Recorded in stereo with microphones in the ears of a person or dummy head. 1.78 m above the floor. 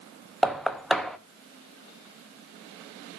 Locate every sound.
0.4 s knocking: centre (ahead or behind), 0.8 m